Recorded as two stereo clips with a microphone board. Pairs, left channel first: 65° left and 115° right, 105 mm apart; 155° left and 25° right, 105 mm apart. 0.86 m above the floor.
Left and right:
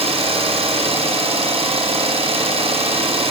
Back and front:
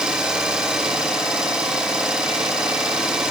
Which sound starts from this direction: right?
An engine running, at 0.0 s.